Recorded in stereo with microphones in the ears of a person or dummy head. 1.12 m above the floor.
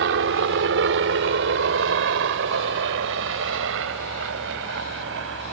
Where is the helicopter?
65° right (ahead or behind); by 5.5 s 75° right (ahead or behind).